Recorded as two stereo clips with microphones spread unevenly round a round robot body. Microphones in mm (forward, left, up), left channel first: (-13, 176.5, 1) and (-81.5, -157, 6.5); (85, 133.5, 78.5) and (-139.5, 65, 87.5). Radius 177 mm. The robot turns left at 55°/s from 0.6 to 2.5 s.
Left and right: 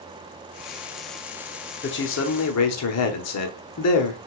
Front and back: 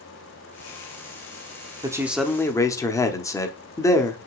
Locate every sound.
1.8 s a man speaking: 125° left, 1.0 m; by 4.2 s 90° left, 1.0 m